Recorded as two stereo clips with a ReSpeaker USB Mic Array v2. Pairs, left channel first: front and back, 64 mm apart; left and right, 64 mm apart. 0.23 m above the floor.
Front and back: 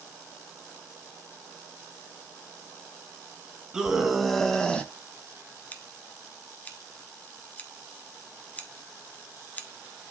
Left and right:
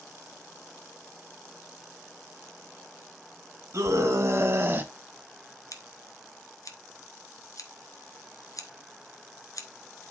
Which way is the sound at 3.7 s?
100° right.